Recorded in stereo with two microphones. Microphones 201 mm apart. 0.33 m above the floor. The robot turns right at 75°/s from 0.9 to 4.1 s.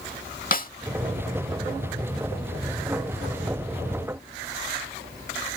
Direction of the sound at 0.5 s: 45° left (ahead or behind).